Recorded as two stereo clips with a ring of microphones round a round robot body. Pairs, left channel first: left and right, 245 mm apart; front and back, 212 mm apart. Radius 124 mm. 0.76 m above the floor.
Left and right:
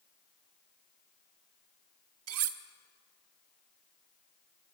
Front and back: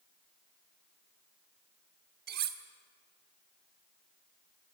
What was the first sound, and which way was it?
Cutlery clinking, 125° right.